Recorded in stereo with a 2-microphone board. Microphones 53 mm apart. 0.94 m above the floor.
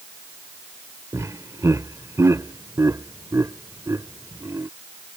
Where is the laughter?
75° right (ahead or behind).